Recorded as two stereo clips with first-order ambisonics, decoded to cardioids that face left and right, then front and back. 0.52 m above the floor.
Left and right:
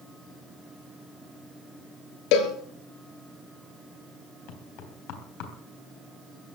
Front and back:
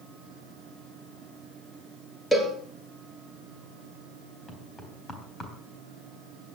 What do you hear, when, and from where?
2.3 s a cowbell: 90° left, 2.5 m
4.5 s knocking: 75° left, 3.5 m